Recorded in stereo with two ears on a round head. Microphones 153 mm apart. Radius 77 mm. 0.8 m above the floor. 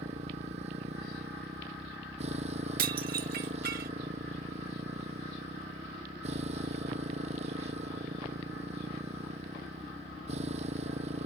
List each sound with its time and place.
0.0 s a motorcycle: 40° right (ahead or behind)
2.8 s dishes clattering: 55° right (ahead or behind)